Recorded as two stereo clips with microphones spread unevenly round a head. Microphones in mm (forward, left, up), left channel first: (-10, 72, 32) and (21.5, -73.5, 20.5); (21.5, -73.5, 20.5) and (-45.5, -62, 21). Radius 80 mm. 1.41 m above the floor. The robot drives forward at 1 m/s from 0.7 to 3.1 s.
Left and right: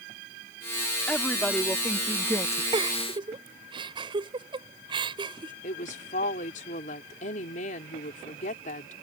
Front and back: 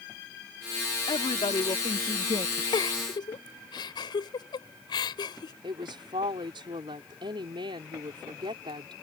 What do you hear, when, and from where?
1.1 s a woman speaking: 20° left; by 2.6 s 35° left
2.7 s a giggle: 15° right
5.6 s a woman speaking: 145° left